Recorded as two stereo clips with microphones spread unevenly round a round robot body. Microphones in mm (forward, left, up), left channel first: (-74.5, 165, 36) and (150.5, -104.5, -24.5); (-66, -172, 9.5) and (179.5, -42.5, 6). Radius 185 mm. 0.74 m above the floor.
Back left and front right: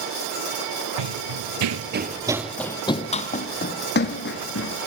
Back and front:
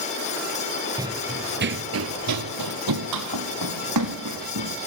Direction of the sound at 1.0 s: 50° right.